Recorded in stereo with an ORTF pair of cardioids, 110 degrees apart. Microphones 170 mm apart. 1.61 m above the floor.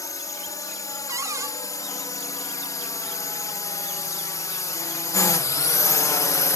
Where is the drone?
20° left; by 6.6 s 25° left.